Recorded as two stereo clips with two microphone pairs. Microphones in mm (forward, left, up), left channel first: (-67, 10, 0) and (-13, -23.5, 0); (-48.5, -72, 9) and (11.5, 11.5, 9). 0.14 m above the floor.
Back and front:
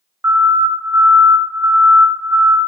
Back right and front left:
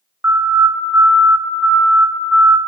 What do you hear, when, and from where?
0.2 s a siren: straight ahead, 2.5 m; by 2.6 s 35° right, 2.0 m